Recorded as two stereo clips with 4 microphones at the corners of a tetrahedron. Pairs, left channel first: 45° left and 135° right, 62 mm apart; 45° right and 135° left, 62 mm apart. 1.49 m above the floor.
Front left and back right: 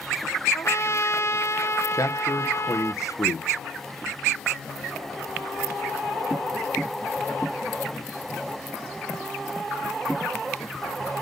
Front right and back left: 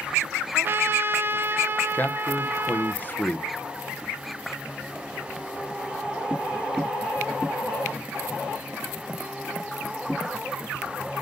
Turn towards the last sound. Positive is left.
turn(degrees=15)